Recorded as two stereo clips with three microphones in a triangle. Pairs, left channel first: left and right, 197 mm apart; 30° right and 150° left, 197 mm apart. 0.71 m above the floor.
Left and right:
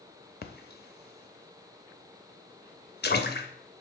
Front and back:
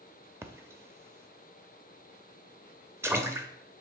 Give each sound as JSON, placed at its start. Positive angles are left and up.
{"t": 0.4, "sound": "a splash", "azimuth_deg": 75, "distance_m": 0.7}